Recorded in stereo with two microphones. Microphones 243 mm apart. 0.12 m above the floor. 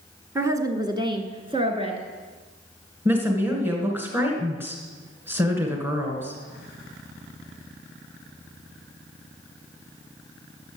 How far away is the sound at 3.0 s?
About 1.7 m.